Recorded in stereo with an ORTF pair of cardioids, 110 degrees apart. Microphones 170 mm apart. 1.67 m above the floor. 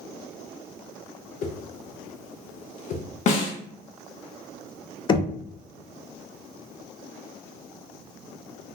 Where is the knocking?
30° left, 0.6 m.